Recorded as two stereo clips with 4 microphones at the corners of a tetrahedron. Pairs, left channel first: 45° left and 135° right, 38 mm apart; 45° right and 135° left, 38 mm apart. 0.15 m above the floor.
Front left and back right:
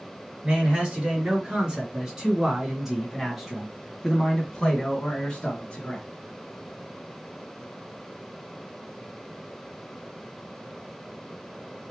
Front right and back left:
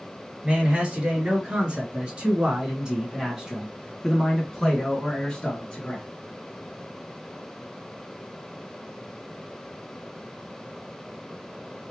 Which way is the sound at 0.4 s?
175° left.